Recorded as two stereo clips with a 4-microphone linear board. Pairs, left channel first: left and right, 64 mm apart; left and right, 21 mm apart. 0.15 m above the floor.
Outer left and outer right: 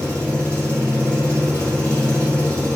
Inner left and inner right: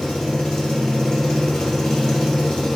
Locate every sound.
0.0 s an engine running: 20° left (ahead or behind), 1.4 m